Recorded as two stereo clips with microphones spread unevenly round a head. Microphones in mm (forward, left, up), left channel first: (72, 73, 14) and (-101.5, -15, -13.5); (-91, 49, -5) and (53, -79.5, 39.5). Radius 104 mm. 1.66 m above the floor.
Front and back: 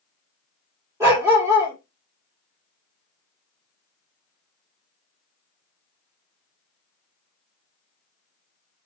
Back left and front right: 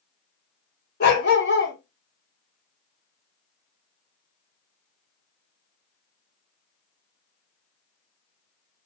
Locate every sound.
1.0 s a dog barking: 125° left, 1.4 m